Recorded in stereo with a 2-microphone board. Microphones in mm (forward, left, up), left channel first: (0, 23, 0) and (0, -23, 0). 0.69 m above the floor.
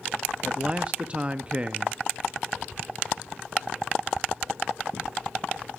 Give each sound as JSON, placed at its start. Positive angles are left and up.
{"t": 0.4, "sound": "a man speaking", "side_deg": -25, "distance_m": 0.5}